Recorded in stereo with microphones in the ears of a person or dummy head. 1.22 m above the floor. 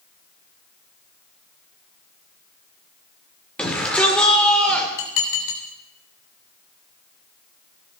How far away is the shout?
About 3.5 m.